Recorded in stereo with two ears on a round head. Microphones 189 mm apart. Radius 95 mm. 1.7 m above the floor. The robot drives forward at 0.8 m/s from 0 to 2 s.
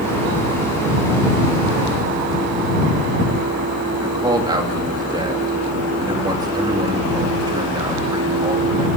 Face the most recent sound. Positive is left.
turn(degrees=-20)  # may be behind; listen again after turning